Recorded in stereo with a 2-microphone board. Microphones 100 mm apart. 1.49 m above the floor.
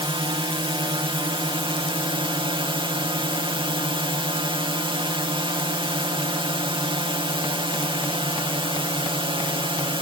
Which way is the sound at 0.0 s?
60° right (ahead or behind).